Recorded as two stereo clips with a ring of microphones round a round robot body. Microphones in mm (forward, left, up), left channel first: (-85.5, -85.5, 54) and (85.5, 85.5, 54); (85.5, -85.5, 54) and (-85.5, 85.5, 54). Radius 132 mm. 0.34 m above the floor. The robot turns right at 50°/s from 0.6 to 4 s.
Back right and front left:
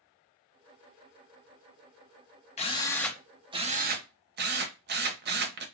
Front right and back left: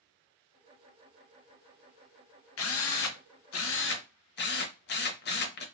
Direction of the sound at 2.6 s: 75° right.